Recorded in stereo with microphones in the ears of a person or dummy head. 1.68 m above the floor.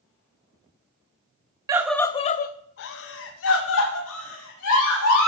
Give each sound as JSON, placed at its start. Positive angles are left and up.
{"t": 1.7, "sound": "a scream", "side_deg": -20, "distance_m": 0.5}